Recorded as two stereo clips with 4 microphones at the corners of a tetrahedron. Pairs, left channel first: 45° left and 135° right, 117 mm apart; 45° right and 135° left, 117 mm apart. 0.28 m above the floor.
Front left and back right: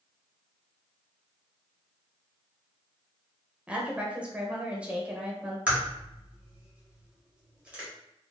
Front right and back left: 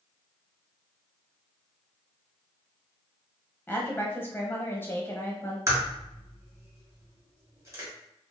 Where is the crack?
155° left, 1.6 m.